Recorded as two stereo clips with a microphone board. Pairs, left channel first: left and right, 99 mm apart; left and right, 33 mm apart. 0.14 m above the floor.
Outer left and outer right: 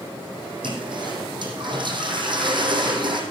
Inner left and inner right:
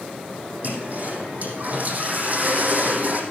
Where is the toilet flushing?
50° right (ahead or behind), 3 m.